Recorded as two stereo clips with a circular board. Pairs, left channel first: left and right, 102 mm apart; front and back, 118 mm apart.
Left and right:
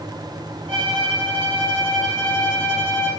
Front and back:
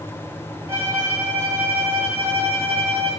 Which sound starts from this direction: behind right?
A violin, at 0.7 s.